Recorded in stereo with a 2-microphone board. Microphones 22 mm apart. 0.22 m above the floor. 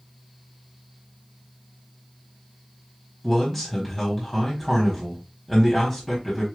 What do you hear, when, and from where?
3.2 s a man speaking: 15° left (ahead or behind), 1.2 m